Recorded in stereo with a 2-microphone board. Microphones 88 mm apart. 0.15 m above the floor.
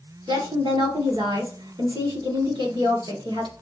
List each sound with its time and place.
0.3 s a woman speaking: 60° right (ahead or behind), 2.5 m